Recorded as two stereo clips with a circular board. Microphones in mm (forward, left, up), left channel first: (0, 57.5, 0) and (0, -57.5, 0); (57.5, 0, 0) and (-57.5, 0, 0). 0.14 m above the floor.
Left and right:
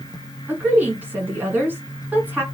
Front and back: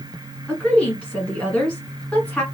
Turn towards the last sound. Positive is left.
turn(degrees=-60)